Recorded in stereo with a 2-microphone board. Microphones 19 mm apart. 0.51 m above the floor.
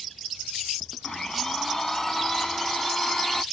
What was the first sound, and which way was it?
A blender, 30° left (ahead or behind).